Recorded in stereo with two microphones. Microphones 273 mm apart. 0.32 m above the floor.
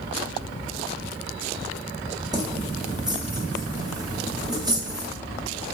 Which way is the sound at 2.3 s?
15° right (ahead or behind).